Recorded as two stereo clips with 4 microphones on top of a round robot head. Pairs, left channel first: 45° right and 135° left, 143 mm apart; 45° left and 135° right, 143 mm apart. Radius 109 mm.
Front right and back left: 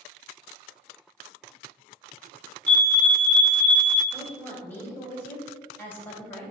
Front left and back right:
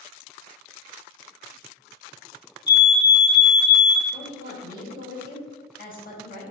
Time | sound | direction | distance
2.7 | a fire alarm | 25° left | 2.0 m
4.1 | a woman speaking | 35° left | 3 m